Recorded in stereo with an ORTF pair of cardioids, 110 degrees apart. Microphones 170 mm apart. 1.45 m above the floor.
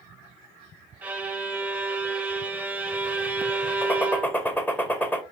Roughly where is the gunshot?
Ahead.